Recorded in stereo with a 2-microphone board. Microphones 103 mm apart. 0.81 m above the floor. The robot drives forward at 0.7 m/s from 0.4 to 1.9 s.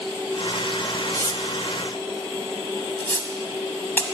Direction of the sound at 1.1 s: 25° left (ahead or behind).